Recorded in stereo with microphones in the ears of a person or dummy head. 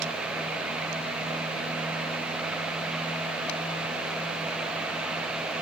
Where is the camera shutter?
No camera shutter in this recording.